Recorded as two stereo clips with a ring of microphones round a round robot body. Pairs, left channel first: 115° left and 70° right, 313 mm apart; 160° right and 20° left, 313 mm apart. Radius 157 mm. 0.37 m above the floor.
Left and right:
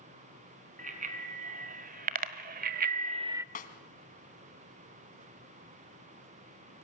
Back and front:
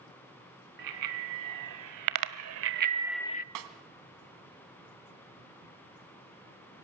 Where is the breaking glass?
No breaking glass in this recording.